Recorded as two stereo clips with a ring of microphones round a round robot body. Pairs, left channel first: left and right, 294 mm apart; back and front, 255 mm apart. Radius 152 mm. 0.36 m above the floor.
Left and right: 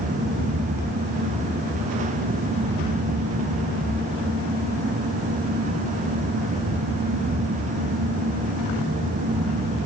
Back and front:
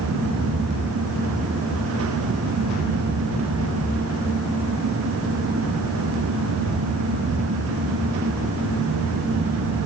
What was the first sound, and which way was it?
Only background noise.